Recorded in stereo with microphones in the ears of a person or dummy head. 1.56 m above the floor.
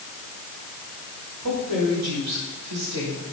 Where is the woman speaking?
85° right, 5 m.